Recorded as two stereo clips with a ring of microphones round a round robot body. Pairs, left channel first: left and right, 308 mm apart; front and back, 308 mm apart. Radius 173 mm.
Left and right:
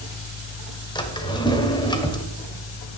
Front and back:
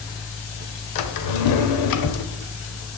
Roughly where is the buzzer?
No buzzer in this recording.